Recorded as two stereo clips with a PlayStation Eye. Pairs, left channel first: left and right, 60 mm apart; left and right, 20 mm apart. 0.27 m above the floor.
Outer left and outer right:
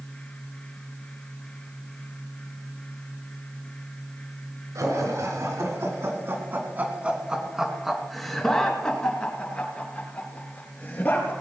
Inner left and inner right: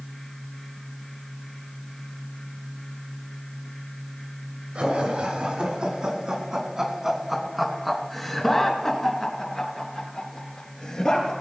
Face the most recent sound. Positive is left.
turn(degrees=30)  # may be behind; listen again after turning